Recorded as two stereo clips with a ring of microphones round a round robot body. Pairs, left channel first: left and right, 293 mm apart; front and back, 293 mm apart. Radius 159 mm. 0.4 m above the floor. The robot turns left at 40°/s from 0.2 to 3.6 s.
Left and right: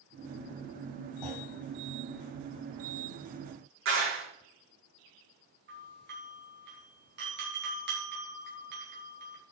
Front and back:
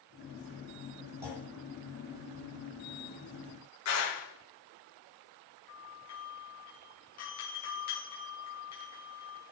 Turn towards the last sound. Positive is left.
turn(degrees=-40)